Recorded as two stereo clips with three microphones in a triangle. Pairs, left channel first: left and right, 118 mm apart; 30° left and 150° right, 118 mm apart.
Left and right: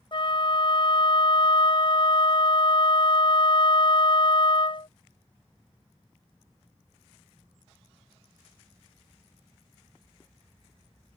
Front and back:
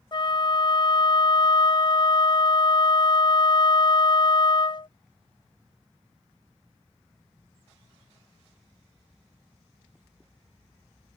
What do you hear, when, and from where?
0.1 s a flute: 65° left